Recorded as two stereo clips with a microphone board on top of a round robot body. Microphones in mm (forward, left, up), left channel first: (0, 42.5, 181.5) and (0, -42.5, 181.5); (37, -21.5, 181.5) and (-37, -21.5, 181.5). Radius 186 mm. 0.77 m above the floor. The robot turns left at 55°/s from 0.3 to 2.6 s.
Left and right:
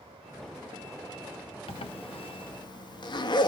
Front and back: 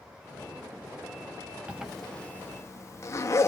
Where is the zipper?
105° left, 0.5 m; by 3.5 s 55° left, 0.5 m.